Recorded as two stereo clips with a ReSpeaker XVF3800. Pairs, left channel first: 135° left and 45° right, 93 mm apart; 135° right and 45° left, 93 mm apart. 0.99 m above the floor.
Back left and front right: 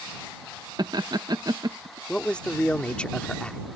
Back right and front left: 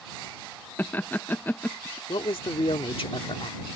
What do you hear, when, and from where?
0.8 s laughter: 70° right
2.1 s a man speaking: 145° right